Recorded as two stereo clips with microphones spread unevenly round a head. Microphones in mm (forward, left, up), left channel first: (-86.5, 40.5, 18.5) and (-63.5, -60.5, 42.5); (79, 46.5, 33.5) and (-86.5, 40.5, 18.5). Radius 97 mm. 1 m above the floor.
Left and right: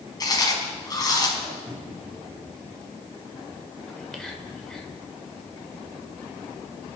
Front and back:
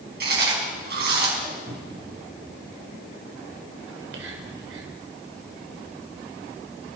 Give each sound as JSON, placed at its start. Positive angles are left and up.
{"t": 0.2, "sound": "chewing", "azimuth_deg": 155, "distance_m": 5.0}
{"t": 1.7, "sound": "a cupboard door", "azimuth_deg": -165, "distance_m": 3.5}
{"t": 3.9, "sound": "whispering", "azimuth_deg": -170, "distance_m": 4.0}